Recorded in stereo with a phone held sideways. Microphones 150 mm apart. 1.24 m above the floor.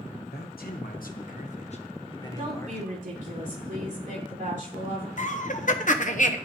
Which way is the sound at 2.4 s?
60° right (ahead or behind).